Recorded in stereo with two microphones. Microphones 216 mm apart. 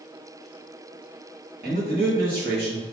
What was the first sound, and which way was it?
A man speaking, 50° right (ahead or behind).